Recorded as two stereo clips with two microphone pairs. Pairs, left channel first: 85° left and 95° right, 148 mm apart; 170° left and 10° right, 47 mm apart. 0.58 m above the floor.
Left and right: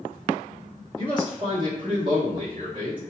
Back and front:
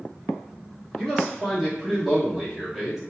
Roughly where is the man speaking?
Right.